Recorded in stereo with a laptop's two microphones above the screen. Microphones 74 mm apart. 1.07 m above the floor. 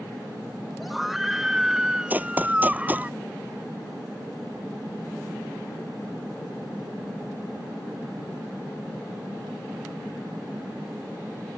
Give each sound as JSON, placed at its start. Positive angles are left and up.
{"t": 0.8, "sound": "a scream", "side_deg": 0}
{"t": 2.1, "sound": "running footsteps", "side_deg": -20}